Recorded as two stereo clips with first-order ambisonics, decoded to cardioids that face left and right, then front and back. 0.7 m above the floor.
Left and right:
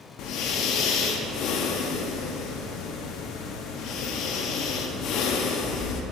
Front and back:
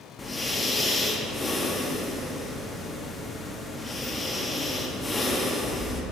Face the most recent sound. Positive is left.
turn(degrees=75)